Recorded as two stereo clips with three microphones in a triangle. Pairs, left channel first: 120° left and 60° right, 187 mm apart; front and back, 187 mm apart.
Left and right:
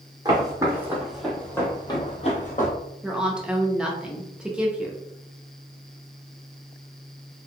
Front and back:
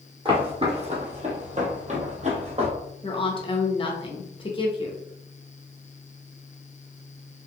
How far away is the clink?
No clink in this recording.